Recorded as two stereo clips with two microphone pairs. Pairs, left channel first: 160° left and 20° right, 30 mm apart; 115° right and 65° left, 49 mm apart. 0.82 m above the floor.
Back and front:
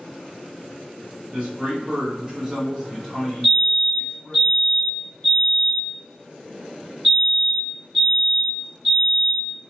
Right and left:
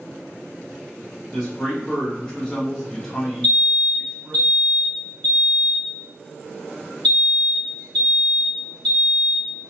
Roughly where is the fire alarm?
Behind.